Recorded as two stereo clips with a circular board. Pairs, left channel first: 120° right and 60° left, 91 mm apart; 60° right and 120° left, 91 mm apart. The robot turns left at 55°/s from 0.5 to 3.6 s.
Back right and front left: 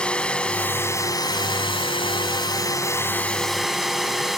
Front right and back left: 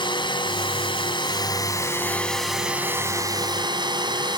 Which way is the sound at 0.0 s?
40° right.